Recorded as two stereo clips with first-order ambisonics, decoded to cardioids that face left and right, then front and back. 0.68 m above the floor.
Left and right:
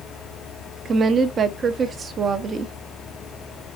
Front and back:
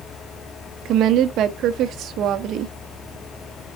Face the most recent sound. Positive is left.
turn(degrees=-150)